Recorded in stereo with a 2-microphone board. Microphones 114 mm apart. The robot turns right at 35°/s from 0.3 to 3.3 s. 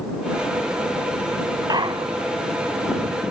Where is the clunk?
35° right (ahead or behind); by 2.3 s 60° right (ahead or behind).